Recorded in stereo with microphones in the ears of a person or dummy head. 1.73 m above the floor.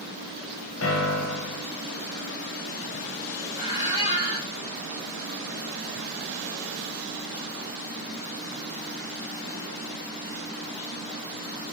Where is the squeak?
20° right (ahead or behind), 1.3 m.